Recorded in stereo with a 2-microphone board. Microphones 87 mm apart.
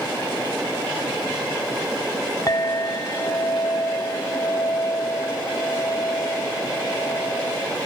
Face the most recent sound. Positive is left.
turn(degrees=40)  # may be behind; listen again after turning